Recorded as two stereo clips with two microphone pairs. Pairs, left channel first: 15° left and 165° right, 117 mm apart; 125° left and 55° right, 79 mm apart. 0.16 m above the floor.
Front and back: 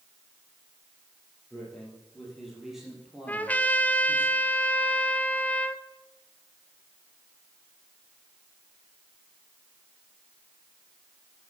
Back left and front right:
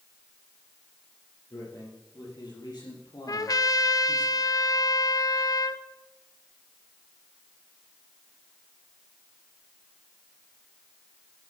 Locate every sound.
1.5 s a man speaking: 100° left, 6 m; by 4.3 s 120° left, 3 m
3.3 s a trumpet: 90° left, 0.6 m